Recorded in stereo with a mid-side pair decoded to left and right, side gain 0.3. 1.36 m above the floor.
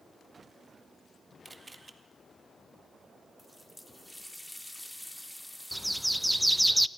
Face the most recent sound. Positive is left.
turn(degrees=-10)